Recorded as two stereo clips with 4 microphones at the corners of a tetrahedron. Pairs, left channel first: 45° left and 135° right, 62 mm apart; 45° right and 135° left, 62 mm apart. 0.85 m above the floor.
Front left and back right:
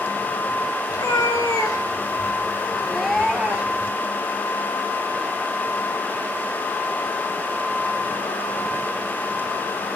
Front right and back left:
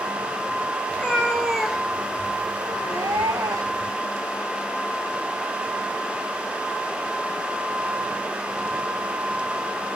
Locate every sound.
0.9 s a cat meowing: 30° left, 1.6 m; by 3.9 s 160° left, 1.7 m